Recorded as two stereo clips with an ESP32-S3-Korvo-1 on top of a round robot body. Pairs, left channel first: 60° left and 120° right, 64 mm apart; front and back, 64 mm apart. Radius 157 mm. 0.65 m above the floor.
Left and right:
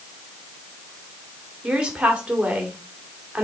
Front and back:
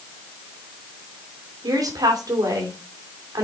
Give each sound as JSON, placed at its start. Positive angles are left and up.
{"t": 1.6, "sound": "a woman speaking", "azimuth_deg": 165, "distance_m": 2.5}